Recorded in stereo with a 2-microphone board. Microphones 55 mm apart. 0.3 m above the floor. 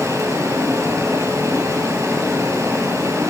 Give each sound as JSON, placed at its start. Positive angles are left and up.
{"t": 0.0, "sound": "running water", "side_deg": -75, "distance_m": 6.0}